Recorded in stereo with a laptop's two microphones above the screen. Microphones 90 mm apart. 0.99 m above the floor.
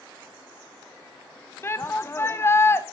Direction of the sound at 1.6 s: 25° left (ahead or behind).